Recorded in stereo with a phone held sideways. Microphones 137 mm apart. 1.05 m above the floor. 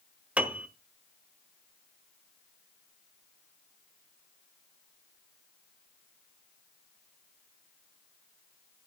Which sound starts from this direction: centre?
A piano, at 0.4 s.